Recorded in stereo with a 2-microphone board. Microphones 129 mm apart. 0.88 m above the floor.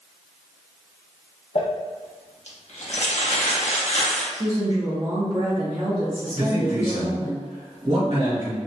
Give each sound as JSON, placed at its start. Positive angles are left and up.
{"t": 1.6, "sound": "crumpling", "side_deg": 60, "distance_m": 0.6}
{"t": 4.3, "sound": "a woman speaking", "side_deg": -35, "distance_m": 0.5}
{"t": 6.3, "sound": "a man speaking", "side_deg": -50, "distance_m": 1.5}